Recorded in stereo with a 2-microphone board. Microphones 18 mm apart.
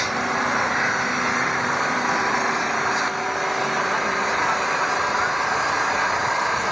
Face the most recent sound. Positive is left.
turn(degrees=-5)  # may be behind; listen again after turning